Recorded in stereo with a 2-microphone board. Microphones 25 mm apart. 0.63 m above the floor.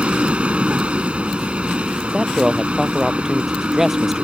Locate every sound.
0.0 s a vehicle: 45° right (ahead or behind)
2.0 s a man speaking: 10° right (ahead or behind)